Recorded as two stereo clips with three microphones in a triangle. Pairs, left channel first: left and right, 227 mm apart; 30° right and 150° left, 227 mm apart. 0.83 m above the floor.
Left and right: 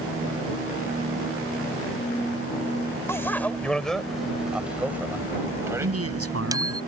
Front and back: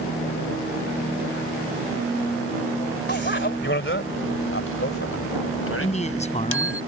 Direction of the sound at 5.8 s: 90° right.